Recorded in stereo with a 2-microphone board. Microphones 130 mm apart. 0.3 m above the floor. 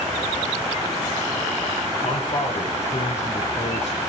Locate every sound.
2.0 s a man speaking: 60° left (ahead or behind), 6.5 m; by 4.0 s 55° left (ahead or behind), 5.5 m